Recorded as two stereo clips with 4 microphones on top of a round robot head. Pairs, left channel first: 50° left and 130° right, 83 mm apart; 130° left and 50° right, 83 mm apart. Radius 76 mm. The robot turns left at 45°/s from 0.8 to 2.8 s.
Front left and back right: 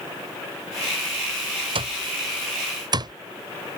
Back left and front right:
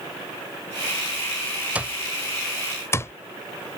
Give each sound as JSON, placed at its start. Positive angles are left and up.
{"t": 1.8, "sound": "an alarm clock", "azimuth_deg": -120}